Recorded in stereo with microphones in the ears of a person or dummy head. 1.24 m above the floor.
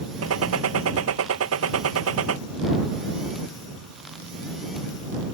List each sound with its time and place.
0.2 s a gunshot: 75° right (ahead or behind)